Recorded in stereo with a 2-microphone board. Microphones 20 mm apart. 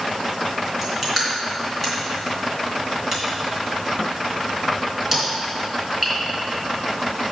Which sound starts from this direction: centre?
Crushing, at 0.8 s.